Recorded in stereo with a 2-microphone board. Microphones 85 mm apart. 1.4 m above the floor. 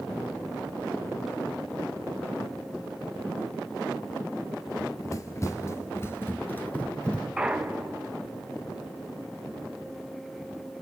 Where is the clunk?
10° right (ahead or behind), 1.0 m.